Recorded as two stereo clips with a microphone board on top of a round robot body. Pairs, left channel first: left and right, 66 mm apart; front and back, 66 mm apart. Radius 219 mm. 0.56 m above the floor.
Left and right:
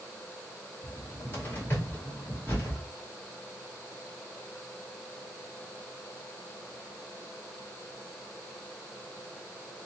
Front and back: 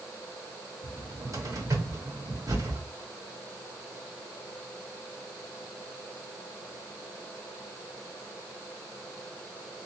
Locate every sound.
0.8 s a cupboard door: 150° left, 2.5 m